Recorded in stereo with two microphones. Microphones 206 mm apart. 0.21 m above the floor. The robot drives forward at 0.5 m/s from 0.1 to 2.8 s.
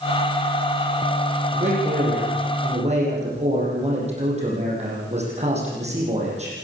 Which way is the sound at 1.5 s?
35° right (ahead or behind).